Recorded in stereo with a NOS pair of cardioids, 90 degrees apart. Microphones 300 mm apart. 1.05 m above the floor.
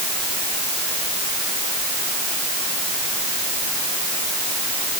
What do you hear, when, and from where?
Only background noise.